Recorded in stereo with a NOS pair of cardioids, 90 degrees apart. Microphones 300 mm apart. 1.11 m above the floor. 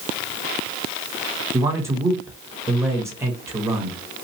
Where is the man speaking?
10° right, 1.4 m.